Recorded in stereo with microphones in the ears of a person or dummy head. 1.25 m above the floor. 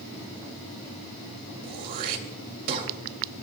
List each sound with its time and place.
1.6 s throat clearing: 55° right (ahead or behind), 2 m